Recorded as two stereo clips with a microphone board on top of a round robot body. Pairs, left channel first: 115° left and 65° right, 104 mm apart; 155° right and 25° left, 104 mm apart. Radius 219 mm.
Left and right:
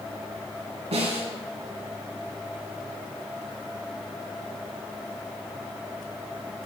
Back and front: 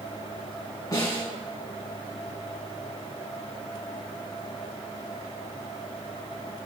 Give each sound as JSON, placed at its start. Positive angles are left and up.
{"t": 0.9, "sound": "a snare drum", "azimuth_deg": -100, "distance_m": 3.0}